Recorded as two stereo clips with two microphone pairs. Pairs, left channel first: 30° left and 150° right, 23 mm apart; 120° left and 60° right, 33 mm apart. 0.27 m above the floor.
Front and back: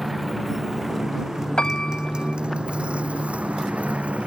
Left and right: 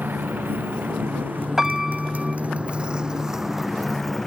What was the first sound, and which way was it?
A motorcycle, 60° right.